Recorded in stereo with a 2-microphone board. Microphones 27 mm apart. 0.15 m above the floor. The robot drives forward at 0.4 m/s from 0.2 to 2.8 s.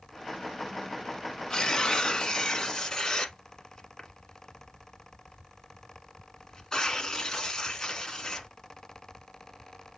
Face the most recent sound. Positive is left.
turn(degrees=25)  # may be behind; listen again after turning